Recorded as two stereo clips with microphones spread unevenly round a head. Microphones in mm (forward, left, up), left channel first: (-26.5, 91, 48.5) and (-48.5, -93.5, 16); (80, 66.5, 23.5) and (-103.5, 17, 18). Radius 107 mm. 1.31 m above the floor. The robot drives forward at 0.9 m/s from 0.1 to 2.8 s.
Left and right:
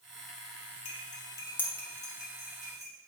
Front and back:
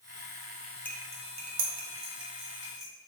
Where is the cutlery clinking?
85° left, 0.5 m; by 2.9 s 170° left, 1.8 m.